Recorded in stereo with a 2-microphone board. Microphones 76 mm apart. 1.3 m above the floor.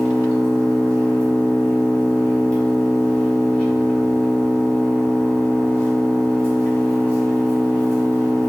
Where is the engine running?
15° left (ahead or behind), 1.5 m.